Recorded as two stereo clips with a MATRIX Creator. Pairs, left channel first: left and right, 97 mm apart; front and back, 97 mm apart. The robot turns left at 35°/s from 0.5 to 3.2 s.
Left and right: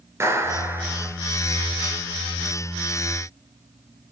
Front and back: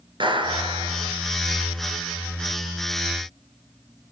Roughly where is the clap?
Behind right.